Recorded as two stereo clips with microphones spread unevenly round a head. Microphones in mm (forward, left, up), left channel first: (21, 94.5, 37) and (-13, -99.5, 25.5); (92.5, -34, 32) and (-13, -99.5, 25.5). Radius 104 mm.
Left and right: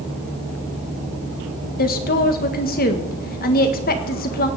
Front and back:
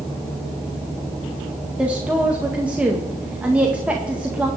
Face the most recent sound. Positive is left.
turn(degrees=125)